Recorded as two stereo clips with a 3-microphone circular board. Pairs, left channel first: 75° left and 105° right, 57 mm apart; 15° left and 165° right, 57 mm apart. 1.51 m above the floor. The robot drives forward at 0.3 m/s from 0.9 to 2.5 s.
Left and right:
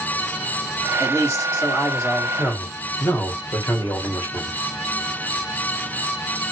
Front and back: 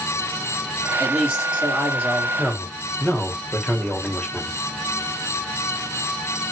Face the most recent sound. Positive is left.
turn(degrees=90)